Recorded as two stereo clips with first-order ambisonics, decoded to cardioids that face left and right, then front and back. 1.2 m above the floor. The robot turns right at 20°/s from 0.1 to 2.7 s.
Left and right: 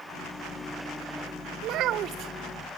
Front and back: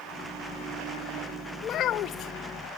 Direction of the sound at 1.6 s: 55° right.